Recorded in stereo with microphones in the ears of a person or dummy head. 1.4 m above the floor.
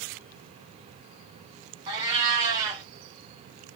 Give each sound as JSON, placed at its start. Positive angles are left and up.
{"t": 1.9, "sound": "a cat meowing", "side_deg": -20, "distance_m": 1.6}